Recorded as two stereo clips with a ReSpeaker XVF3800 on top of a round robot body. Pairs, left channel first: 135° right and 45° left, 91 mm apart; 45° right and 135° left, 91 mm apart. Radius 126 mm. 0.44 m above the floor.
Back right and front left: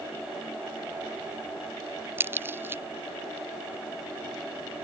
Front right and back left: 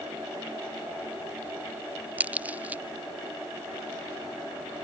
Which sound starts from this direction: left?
A crack, at 2.2 s.